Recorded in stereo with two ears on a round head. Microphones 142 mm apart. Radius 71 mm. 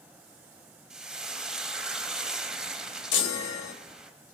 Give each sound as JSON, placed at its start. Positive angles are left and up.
{"t": 0.9, "sound": "frying", "side_deg": -5, "distance_m": 0.8}
{"t": 3.1, "sound": "a chime", "side_deg": 85, "distance_m": 1.1}